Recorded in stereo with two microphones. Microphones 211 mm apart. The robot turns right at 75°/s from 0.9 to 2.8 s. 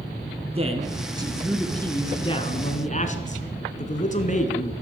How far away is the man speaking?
About 1.2 m.